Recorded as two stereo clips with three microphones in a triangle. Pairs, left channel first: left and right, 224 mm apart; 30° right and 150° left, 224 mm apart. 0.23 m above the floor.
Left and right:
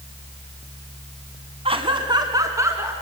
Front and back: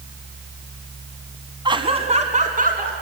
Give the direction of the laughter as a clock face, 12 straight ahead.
5 o'clock.